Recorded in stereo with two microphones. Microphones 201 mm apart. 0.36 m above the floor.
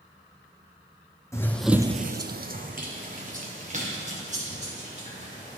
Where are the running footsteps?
15° left (ahead or behind), 1.0 m; by 5.6 s 35° right (ahead or behind), 5.5 m.